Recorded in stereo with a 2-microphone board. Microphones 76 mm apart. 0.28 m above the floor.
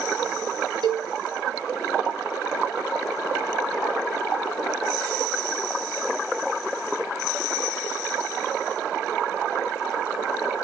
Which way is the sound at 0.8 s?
80° right.